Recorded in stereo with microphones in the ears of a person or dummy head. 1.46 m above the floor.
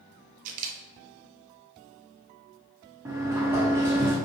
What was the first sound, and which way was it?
A camera shutter, 45° right (ahead or behind).